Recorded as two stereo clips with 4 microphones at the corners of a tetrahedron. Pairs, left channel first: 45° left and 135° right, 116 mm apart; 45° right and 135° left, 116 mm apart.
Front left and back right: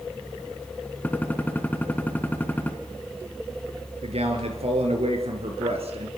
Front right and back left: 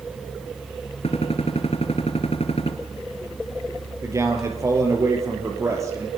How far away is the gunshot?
About 2 m.